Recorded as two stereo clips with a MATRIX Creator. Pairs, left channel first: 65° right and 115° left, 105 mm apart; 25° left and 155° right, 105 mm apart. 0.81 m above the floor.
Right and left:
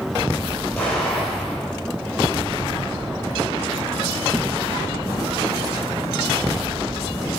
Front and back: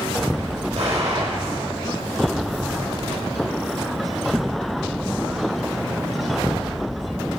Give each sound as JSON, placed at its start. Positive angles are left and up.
{"t": 0.8, "sound": "an explosion", "azimuth_deg": -145, "distance_m": 5.5}